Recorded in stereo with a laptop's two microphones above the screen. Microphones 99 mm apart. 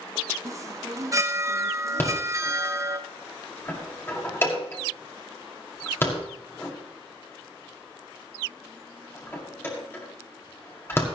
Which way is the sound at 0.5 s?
30° right (ahead or behind).